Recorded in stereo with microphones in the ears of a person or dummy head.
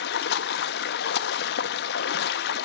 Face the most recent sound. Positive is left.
turn(degrees=70)  # may be behind; listen again after turning